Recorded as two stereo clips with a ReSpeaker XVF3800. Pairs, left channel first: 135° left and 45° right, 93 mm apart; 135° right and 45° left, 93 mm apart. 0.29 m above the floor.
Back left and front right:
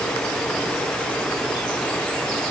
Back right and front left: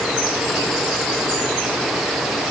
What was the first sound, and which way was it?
Only background noise.